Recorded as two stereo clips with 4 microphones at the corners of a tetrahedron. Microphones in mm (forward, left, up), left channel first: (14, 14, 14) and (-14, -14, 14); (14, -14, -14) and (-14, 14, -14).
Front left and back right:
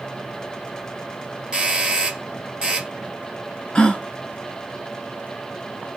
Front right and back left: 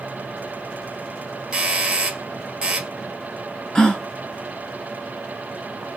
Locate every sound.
1.5 s a doorbell: straight behind, 1.2 m
3.8 s a gasp: 10° left, 0.8 m